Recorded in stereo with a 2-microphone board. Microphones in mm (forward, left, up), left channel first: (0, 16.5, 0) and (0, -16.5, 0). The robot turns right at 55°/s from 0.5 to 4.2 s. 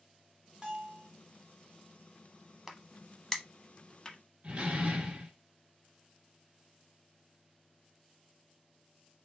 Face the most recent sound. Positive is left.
turn(degrees=-40)  # may be behind; listen again after turning